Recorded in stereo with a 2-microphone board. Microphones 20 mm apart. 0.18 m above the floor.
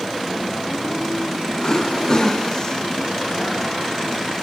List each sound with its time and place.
1.6 s throat clearing: 35° left (ahead or behind)